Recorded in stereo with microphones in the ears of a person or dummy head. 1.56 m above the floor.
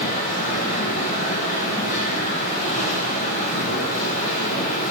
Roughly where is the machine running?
Left.